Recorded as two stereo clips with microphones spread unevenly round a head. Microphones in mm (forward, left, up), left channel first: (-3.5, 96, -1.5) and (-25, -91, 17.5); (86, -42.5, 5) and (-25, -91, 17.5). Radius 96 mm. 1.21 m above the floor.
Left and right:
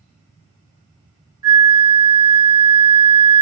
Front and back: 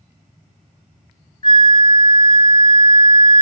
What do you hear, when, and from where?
1.4 s a flute: 30° right, 0.9 m